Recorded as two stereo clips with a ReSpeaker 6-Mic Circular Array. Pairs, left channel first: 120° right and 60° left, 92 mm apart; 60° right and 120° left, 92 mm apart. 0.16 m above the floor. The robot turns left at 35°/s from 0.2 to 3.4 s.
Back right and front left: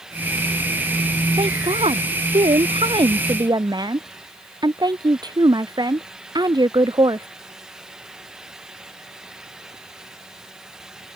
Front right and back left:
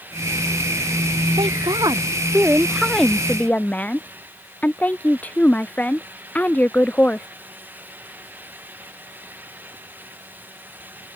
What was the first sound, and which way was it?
A woman speaking, 85° left.